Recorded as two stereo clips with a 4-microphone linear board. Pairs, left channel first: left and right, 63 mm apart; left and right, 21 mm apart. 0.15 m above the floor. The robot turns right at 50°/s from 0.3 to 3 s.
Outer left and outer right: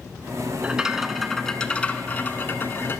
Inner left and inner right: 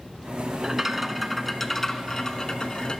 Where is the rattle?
30° right, 0.8 m; by 3.0 s 90° left, 0.8 m.